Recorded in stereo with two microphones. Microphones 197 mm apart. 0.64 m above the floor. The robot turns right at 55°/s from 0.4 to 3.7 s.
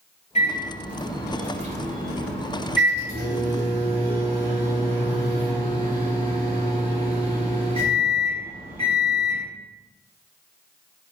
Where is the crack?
I don't hear a crack.